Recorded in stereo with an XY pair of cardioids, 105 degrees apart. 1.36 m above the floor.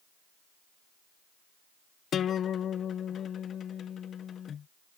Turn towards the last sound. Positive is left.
turn(degrees=55)